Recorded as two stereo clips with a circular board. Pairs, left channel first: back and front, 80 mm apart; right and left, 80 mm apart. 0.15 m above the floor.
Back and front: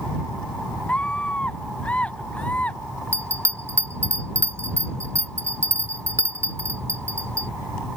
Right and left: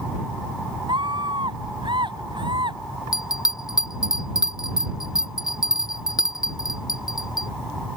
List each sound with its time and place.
0.9 s a scream: 105° left
3.1 s a bell: 55° right